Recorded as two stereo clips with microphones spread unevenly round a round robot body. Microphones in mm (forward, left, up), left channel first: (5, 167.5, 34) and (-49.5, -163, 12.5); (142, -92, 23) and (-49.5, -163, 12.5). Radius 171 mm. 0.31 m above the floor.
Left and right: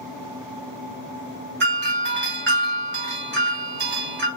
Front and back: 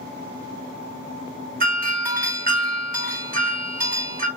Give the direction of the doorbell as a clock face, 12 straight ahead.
5 o'clock.